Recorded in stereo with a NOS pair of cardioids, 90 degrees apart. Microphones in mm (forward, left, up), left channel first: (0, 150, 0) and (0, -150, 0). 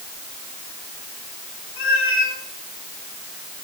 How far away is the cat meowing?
About 3 m.